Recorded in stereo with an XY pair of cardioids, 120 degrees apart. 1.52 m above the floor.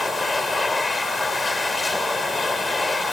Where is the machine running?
15° left.